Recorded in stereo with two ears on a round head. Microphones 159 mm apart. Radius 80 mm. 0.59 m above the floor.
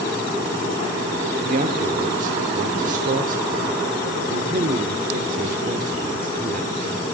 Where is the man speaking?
45° right (ahead or behind), 1.3 m.